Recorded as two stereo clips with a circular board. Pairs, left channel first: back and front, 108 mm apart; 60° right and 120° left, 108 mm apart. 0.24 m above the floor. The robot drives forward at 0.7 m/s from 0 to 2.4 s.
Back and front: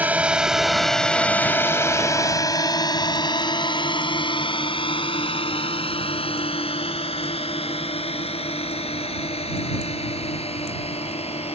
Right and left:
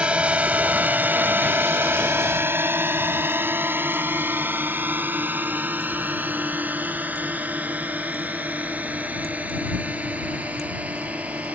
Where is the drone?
55° left; by 11.6 s 165° right.